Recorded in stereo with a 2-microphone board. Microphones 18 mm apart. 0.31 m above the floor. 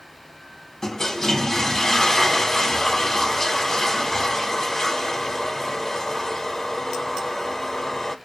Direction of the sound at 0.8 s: 30° left (ahead or behind).